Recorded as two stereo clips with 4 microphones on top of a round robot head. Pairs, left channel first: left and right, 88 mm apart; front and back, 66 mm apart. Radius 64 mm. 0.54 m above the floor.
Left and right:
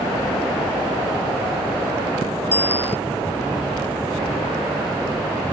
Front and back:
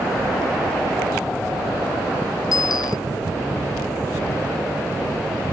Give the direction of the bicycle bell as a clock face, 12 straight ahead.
11 o'clock.